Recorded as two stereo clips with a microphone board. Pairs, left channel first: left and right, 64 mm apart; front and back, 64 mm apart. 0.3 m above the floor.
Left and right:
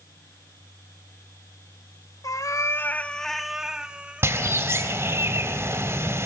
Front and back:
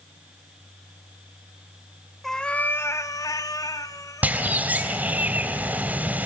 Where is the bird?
120° right, 2.5 m.